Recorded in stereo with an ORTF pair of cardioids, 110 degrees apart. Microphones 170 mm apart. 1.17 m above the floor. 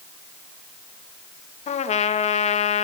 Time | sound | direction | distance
1.7 | a trumpet | 40° left | 1.8 m